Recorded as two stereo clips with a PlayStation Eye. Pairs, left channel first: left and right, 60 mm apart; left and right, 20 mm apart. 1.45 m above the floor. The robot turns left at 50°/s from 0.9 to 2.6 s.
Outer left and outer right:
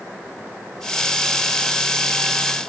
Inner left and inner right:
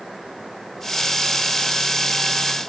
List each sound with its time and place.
Only background noise.